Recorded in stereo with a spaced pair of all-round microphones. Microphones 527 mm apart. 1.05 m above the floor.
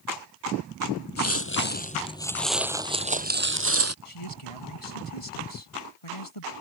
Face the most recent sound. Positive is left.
turn(degrees=85)